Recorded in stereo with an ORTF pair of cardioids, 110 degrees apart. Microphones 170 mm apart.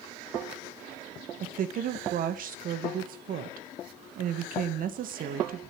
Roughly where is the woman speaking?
Ahead right.